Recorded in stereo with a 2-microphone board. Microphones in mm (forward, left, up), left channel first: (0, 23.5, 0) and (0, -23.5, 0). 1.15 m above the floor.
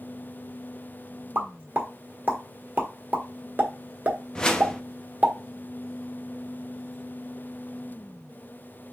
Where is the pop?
45° right (ahead or behind), 1.2 m.